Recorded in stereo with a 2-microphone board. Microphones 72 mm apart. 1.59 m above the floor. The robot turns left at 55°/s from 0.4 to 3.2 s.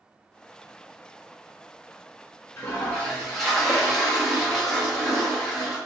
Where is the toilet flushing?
35° left, 1.2 m; by 5.8 s straight ahead, 1.2 m.